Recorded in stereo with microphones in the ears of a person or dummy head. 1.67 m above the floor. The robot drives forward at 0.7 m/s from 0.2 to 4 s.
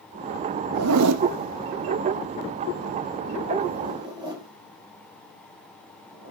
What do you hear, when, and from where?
0.7 s a zipper: 75° right (ahead or behind), 1.0 m; by 6.3 s 25° right (ahead or behind), 2.5 m